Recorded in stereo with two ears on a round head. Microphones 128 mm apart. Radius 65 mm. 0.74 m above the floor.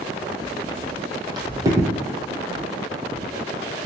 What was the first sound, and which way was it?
Footsteps, 40° right (ahead or behind).